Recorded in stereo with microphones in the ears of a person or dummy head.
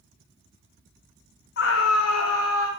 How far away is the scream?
About 0.9 m.